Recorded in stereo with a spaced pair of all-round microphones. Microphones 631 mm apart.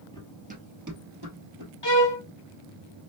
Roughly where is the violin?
Left.